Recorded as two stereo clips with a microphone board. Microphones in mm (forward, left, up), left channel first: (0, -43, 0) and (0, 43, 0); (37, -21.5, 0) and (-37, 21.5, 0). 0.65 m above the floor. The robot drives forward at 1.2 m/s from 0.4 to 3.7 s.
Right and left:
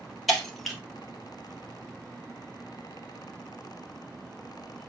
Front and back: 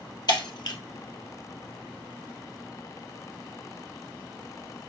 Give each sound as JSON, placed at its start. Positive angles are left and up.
{"t": 0.3, "sound": "breaking glass", "azimuth_deg": 0, "distance_m": 2.5}